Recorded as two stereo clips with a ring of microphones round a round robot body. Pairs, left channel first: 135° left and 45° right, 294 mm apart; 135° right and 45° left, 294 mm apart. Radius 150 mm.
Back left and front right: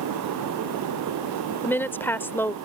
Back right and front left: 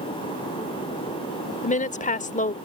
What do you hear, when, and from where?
1.6 s a woman speaking: 150° right